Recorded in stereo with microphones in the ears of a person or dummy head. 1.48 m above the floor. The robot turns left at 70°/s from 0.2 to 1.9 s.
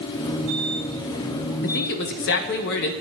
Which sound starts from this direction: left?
A man speaking, at 1.6 s.